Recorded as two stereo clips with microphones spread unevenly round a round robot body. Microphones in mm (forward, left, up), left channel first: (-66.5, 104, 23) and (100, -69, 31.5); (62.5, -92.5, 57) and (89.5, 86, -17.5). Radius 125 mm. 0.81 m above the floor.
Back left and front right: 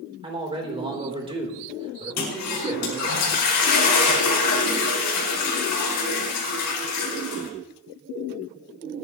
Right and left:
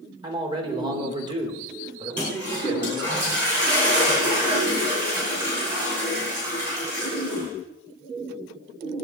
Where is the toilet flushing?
165° left, 5 m.